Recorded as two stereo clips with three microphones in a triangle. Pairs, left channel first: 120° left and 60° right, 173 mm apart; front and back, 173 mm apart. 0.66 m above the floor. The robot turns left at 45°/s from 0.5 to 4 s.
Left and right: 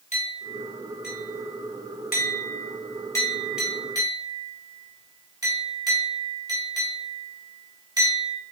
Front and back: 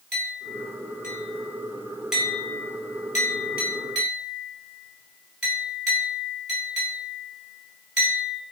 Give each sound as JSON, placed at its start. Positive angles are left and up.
{"t": 0.1, "sound": "a clink", "azimuth_deg": 165, "distance_m": 1.8}